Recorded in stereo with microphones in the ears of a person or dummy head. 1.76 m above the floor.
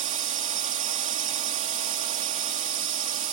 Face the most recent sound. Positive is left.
turn(degrees=-40)  # may be behind; listen again after turning